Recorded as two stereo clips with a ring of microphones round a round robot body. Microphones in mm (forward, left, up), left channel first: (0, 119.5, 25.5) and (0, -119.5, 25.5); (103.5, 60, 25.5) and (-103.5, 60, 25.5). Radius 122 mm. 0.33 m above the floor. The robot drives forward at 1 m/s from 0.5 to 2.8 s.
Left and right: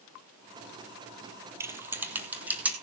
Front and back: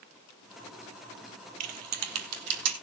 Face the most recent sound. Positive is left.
turn(degrees=-175)